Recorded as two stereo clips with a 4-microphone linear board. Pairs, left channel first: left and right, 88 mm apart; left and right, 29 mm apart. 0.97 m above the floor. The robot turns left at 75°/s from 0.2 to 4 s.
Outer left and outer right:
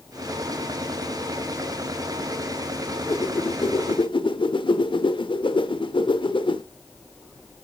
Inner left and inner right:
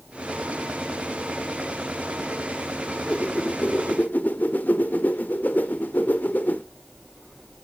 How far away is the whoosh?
About 1.3 m.